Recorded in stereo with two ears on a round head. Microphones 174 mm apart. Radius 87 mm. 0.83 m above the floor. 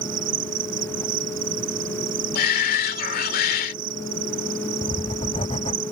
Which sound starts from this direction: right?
An insect, at 0.0 s.